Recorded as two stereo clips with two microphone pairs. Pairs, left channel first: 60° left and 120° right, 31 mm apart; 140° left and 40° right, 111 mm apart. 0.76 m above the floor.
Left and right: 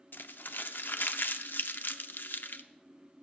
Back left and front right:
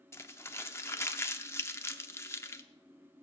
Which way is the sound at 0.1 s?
70° left.